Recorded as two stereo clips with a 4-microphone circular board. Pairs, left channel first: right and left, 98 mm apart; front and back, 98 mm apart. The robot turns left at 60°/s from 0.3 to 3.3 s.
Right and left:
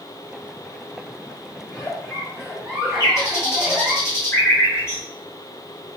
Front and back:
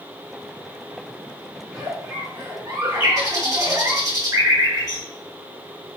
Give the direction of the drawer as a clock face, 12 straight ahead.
No drawer in this recording.